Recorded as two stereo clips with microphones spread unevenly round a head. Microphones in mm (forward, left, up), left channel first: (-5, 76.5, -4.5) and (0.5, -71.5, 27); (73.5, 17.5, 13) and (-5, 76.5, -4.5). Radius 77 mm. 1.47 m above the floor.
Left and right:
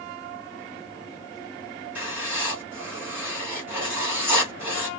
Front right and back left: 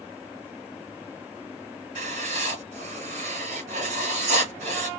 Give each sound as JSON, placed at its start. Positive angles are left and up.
{"t": 1.9, "sound": "writing", "azimuth_deg": -165, "distance_m": 3.5}